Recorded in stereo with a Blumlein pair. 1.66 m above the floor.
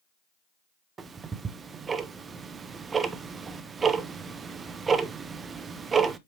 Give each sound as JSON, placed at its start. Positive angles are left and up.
{"t": 1.0, "sound": "ticking", "azimuth_deg": -20, "distance_m": 0.7}